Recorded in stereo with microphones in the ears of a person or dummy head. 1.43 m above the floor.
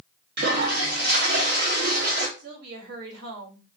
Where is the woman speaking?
65° right (ahead or behind), 2.5 m.